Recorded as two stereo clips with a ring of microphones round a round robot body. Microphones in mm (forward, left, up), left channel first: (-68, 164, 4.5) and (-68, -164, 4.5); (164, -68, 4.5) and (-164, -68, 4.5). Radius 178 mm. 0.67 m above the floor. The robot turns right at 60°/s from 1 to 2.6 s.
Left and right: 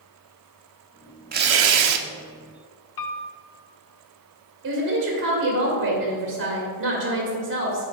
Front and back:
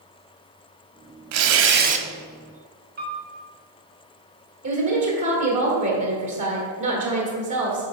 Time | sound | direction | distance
1.3 | tearing paper | 150° right | 0.7 m
3.0 | a piano | 115° left | 0.7 m
4.6 | a woman speaking | 145° right | 1.8 m